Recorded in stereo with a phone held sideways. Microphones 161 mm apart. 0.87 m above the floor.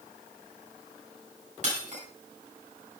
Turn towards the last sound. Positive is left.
turn(degrees=-50)  # may be behind; listen again after turning